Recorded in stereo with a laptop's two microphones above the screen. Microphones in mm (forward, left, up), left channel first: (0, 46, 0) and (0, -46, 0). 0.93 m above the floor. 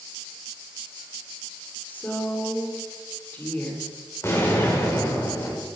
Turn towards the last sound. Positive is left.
turn(degrees=30)  # may be behind; listen again after turning